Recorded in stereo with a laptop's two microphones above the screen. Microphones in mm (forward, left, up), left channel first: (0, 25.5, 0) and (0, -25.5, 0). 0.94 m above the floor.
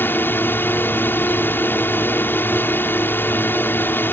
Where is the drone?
45° left (ahead or behind).